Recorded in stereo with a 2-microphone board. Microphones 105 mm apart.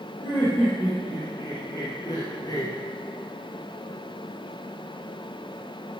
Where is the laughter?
35° left (ahead or behind), 4 m; by 2.7 s 40° left (ahead or behind), 2 m.